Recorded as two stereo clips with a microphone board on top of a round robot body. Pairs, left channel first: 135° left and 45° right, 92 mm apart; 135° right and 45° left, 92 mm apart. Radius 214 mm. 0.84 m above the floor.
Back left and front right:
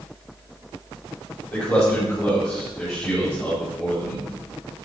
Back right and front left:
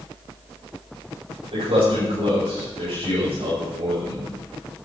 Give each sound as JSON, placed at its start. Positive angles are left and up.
{"t": 1.5, "sound": "a man speaking", "azimuth_deg": 70, "distance_m": 5.0}